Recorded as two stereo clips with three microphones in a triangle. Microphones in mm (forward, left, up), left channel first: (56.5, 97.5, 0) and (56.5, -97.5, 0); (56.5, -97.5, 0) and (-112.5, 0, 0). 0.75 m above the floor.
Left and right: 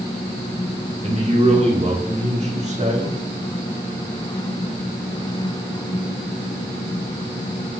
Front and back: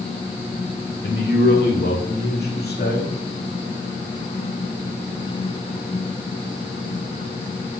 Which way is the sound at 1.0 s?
40° right.